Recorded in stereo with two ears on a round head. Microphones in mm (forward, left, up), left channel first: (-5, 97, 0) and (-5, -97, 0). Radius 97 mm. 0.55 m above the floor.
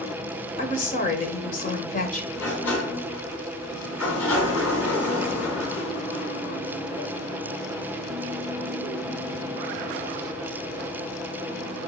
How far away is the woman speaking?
About 2 m.